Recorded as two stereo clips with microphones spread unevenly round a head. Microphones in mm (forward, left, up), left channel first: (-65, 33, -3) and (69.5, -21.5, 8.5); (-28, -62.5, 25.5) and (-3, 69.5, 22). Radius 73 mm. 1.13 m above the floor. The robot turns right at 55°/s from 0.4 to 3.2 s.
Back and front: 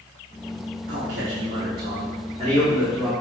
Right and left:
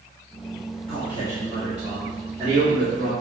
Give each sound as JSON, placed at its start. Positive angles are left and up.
{"t": 0.9, "sound": "a man speaking", "azimuth_deg": -55, "distance_m": 3.5}